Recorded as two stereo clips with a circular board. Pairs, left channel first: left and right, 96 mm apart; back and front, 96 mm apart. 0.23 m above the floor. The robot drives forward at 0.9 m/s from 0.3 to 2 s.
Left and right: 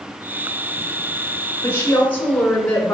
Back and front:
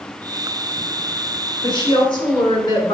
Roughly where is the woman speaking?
Behind left.